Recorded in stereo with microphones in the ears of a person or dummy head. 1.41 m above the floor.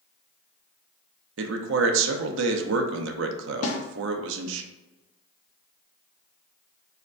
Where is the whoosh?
No whoosh in this recording.